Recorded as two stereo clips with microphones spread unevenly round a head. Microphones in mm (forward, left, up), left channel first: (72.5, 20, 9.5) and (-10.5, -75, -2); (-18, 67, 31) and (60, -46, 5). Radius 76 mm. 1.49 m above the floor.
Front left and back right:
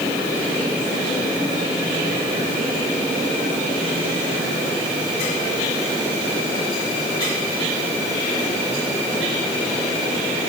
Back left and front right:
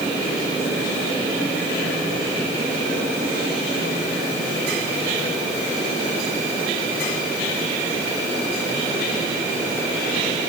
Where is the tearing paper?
I don't hear tearing paper.